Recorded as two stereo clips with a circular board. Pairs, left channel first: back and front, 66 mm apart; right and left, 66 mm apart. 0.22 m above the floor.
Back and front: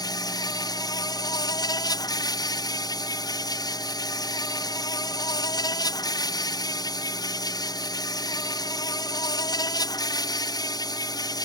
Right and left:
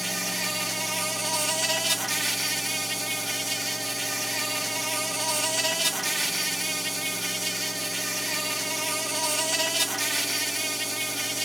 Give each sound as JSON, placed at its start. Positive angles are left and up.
{"t": 0.0, "sound": "an insect", "azimuth_deg": 180}